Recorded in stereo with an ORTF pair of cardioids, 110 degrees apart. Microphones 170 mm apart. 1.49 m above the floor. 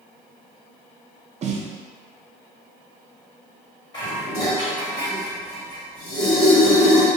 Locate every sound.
1.4 s a snare drum: 45° right, 0.6 m
3.9 s dishes clattering: 25° left, 2.0 m